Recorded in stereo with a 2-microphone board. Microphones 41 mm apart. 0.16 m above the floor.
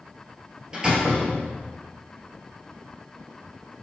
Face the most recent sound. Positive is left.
turn(degrees=-25)  # may be behind; listen again after turning